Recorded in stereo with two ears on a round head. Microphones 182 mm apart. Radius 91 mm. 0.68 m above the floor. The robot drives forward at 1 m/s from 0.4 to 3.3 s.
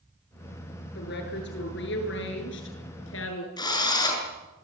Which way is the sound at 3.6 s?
20° left (ahead or behind).